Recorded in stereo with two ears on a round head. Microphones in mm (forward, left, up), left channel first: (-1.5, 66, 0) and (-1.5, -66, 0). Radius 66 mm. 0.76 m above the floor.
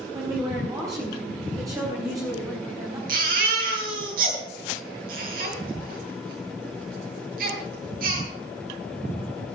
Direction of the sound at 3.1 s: 65° right (ahead or behind).